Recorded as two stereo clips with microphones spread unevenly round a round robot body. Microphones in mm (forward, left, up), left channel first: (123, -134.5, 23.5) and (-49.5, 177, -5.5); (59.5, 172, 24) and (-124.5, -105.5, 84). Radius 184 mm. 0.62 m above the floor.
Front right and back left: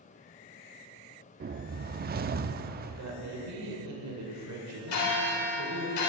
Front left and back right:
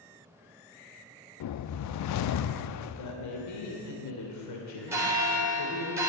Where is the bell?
40° right, 3 m.